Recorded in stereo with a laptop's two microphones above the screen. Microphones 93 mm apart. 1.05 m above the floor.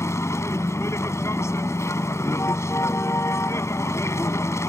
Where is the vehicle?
30° left (ahead or behind).